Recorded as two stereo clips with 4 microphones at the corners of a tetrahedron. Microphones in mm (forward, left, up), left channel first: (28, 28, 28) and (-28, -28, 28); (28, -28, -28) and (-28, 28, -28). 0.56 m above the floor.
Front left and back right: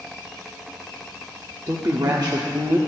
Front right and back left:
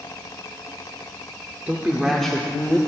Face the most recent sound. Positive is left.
turn(degrees=-100)